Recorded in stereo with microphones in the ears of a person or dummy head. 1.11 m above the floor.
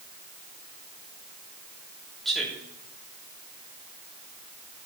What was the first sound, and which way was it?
A man speaking, centre (ahead or behind).